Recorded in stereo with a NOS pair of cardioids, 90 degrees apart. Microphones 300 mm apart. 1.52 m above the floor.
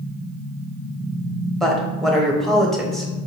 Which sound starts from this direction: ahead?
A woman speaking, at 1.6 s.